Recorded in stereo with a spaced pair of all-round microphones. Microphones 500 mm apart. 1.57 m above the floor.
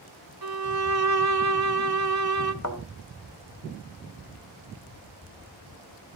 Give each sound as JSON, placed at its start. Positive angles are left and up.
{"t": 0.4, "sound": "a violin", "side_deg": -50, "distance_m": 0.7}
{"t": 2.6, "sound": "a thud", "side_deg": 35, "distance_m": 1.6}